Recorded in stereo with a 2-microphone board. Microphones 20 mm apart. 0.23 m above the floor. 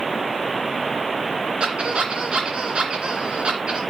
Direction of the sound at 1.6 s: 60° right (ahead or behind).